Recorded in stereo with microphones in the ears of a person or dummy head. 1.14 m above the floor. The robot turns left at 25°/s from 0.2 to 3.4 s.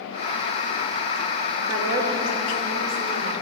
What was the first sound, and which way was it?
A woman speaking, 10° right.